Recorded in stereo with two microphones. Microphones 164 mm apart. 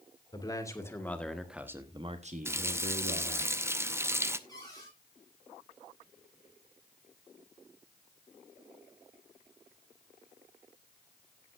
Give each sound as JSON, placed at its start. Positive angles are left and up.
{"t": 0.3, "sound": "a man speaking", "side_deg": 25, "distance_m": 2.0}
{"t": 2.5, "sound": "a running tap", "side_deg": -15, "distance_m": 0.6}
{"t": 4.5, "sound": "a cupboard door", "side_deg": 25, "distance_m": 8.5}